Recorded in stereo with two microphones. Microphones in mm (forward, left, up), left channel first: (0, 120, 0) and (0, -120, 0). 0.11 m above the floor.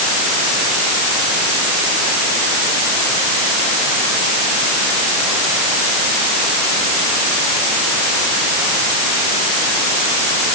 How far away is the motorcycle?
No motorcycle in this recording.